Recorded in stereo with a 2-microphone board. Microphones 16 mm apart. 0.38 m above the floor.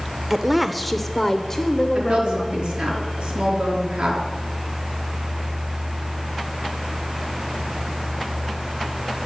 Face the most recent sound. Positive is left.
turn(degrees=-80)